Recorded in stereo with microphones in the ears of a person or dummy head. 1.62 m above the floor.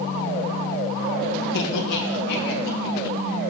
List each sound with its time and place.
1.5 s laughter: 70° left (ahead or behind), 1.4 m; by 3.5 s 65° left (ahead or behind), 3 m